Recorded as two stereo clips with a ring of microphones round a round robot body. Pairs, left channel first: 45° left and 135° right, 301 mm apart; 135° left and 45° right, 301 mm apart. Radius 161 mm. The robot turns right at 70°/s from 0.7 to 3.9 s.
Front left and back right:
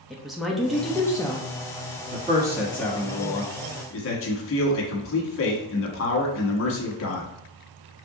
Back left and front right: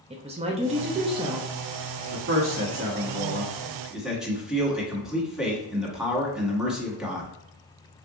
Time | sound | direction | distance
0.1 | a woman speaking | 45° right | 0.7 m
2.1 | a man speaking | 85° right | 1.3 m